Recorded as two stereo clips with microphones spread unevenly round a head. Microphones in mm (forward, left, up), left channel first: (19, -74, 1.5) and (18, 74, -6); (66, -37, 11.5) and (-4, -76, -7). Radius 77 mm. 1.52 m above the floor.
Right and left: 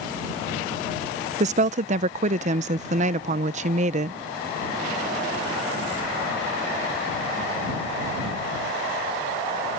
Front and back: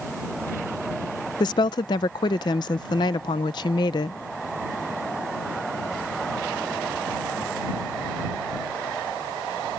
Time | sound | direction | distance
1.4 | a woman speaking | 50° left | ?